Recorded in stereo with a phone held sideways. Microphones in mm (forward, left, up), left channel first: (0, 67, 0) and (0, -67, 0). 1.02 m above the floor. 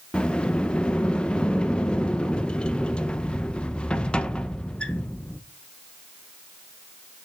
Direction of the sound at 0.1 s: 10° left (ahead or behind).